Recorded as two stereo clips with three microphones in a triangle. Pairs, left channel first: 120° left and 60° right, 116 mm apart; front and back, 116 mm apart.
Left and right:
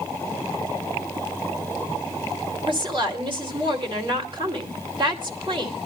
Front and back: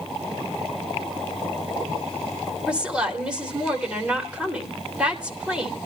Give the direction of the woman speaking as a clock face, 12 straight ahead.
3 o'clock.